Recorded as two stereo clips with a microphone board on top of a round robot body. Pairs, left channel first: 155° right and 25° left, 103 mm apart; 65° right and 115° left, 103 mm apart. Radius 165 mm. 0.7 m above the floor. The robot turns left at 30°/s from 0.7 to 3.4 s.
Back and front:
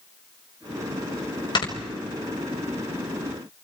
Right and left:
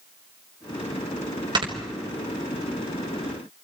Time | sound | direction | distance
1.6 | snoring | 155° left | 3 m